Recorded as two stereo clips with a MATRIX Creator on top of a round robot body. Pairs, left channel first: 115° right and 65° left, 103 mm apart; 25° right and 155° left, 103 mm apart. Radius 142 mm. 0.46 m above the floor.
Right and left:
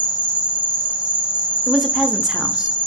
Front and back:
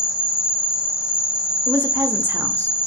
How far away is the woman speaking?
About 0.7 m.